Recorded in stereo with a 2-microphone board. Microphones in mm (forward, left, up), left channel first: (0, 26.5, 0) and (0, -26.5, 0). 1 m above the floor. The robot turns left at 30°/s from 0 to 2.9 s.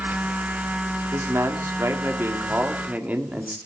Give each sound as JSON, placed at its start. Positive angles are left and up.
{"t": 1.1, "sound": "a man speaking", "azimuth_deg": -95, "distance_m": 2.5}